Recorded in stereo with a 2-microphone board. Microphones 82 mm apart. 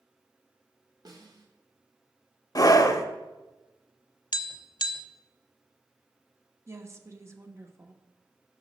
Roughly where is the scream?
Left.